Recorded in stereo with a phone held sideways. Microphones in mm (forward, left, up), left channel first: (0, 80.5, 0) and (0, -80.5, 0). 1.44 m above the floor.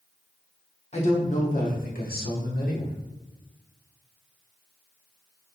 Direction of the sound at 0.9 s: 45° left (ahead or behind).